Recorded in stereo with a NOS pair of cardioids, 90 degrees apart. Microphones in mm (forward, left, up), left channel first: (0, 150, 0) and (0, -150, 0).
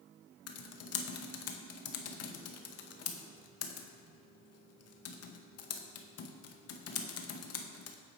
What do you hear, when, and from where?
0.5 s typing on a keyboard: 55° left, 0.6 m